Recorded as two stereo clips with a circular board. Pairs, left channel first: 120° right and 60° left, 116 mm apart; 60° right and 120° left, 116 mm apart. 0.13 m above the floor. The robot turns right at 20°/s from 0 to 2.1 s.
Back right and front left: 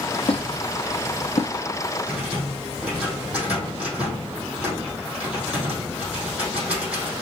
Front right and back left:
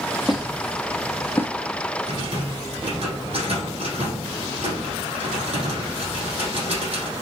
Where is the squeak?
150° right, 1.1 m; by 1.5 s 130° right, 1.1 m.